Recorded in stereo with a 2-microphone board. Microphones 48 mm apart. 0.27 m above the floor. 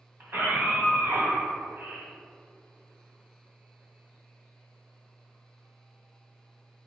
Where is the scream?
50° right (ahead or behind), 2.0 m.